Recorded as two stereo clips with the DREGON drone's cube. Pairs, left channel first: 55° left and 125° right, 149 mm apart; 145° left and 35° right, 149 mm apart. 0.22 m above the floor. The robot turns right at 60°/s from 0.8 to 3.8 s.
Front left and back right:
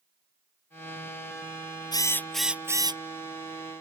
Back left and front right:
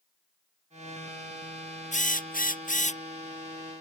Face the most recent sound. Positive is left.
turn(degrees=-130)